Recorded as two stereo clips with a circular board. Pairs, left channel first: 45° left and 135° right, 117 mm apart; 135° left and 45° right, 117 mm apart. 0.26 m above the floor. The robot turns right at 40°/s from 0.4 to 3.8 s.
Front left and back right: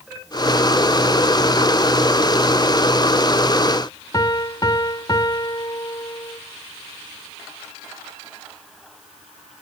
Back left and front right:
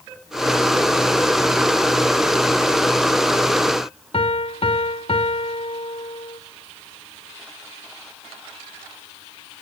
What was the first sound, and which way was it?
A piano, 100° left.